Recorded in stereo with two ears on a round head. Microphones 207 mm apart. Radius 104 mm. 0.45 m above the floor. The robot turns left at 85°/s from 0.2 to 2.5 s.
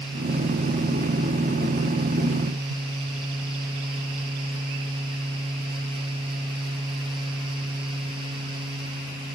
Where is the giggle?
No giggle in this recording.